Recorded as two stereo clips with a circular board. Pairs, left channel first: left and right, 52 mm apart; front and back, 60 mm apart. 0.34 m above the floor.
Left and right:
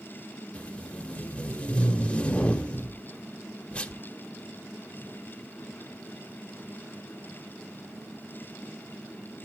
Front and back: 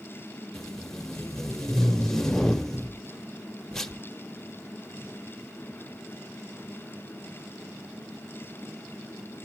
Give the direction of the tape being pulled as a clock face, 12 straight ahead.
10 o'clock.